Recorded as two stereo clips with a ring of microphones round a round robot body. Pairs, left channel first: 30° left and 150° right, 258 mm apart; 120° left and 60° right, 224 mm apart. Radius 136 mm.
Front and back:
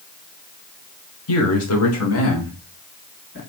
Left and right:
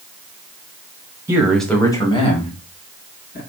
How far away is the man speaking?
About 1.5 m.